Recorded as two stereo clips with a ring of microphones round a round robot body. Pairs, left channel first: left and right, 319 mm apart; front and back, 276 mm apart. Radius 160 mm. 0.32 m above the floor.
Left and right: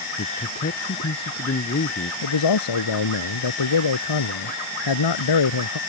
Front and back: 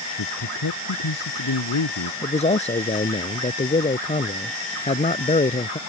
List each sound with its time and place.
0.2 s a man speaking: 30° left
2.2 s a man speaking: 65° left